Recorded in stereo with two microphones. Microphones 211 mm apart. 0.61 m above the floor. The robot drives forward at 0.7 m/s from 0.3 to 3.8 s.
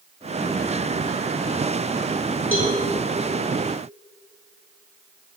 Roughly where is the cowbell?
Left.